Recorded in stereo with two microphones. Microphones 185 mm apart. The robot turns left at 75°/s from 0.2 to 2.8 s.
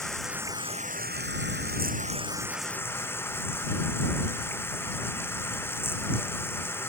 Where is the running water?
Straight ahead; by 6.9 s 165° left.